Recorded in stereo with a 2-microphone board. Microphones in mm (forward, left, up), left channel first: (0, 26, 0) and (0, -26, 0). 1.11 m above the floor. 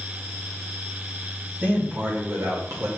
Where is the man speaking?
35° right (ahead or behind), 1.9 m; by 2.9 s 65° right (ahead or behind), 1.7 m.